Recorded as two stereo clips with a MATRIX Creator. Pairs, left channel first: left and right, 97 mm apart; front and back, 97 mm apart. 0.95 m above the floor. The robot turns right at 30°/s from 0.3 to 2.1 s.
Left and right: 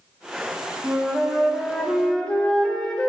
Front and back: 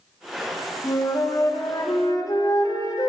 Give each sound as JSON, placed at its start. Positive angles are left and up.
{"t": 0.8, "sound": "a flute", "azimuth_deg": -20, "distance_m": 0.8}